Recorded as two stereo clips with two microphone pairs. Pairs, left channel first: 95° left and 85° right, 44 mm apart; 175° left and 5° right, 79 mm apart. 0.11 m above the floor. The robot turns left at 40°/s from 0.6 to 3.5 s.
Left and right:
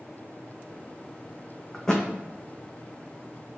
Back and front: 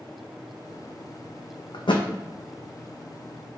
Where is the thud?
Straight behind, 0.6 m; by 2.1 s 165° left, 0.6 m.